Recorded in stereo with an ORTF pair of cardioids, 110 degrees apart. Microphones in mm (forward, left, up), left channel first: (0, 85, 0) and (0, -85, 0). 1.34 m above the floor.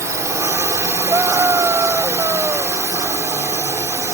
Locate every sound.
0.0 s a drone: 20° right
1.1 s a scream: 15° right